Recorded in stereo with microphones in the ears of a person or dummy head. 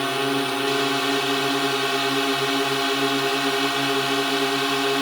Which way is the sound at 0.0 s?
Centre (ahead or behind).